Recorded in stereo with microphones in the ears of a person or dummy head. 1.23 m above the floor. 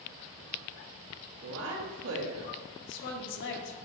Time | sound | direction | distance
1.4 | a woman speaking | 75° right (ahead or behind) | 1.8 m
2.8 | a woman speaking | 65° left (ahead or behind) | 1.2 m